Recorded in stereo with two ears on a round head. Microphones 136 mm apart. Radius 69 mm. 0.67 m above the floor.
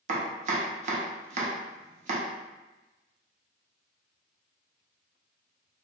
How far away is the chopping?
About 0.6 m.